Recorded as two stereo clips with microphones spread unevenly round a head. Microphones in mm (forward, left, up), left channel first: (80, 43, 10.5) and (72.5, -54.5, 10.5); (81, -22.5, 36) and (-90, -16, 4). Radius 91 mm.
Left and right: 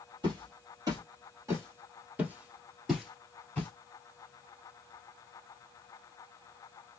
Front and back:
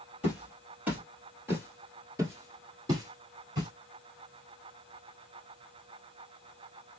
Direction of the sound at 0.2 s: 90° right.